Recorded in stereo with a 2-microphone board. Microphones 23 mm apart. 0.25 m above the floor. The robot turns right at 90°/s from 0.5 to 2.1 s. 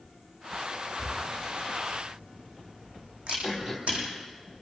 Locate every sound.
1.0 s a camera shutter: 20° right (ahead or behind), 6.5 m; by 4.0 s 60° right (ahead or behind), 6.5 m
3.4 s throat clearing: 20° right (ahead or behind), 4 m